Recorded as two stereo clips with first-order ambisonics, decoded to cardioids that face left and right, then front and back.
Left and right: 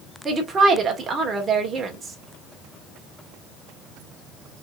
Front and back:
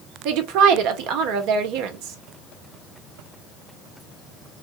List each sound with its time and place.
0.2 s a woman speaking: 160° right, 1.6 m